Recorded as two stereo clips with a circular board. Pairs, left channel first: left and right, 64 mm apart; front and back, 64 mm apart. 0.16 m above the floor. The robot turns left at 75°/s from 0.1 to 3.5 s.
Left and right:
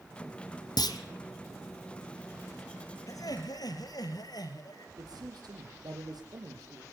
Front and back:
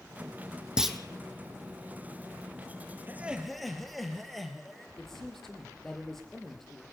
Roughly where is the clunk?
Left.